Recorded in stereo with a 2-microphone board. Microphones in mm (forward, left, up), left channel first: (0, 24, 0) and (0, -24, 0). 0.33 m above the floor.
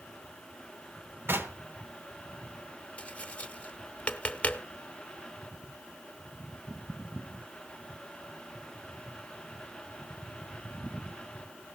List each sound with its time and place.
1.3 s knocking: 50° right (ahead or behind), 1.6 m
3.0 s tapping: 25° left (ahead or behind), 0.9 m